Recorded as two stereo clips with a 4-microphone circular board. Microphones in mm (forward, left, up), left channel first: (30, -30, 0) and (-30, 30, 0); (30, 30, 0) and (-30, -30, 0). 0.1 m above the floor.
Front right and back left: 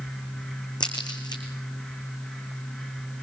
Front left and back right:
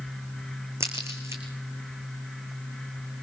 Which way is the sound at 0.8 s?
80° right.